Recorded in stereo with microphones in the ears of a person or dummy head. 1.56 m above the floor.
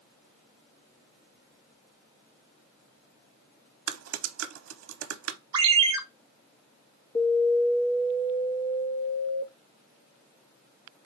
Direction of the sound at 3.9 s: 90° right.